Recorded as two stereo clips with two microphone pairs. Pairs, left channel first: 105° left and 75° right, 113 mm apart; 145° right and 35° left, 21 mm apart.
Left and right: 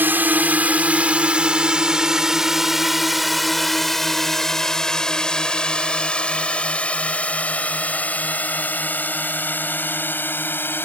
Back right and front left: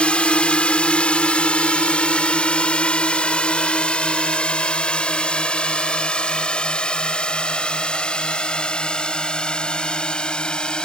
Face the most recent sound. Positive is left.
turn(degrees=175)